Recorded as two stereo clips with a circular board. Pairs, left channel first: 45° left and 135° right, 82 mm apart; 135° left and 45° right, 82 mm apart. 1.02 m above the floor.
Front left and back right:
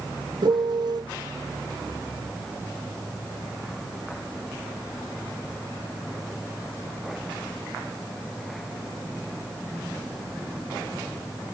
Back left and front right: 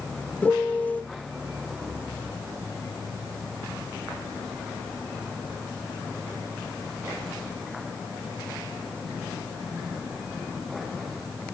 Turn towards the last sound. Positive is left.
turn(degrees=-155)